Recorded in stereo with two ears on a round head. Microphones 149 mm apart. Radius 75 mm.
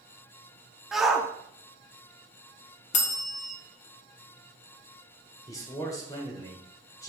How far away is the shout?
About 0.8 m.